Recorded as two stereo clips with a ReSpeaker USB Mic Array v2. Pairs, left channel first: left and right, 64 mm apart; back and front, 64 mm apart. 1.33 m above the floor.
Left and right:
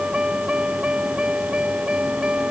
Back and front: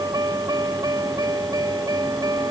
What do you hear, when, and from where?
0.0 s a vehicle: 15° right